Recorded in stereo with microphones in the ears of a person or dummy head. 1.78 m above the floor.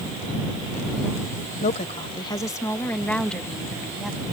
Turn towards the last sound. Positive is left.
turn(degrees=-5)  # may be behind; listen again after turning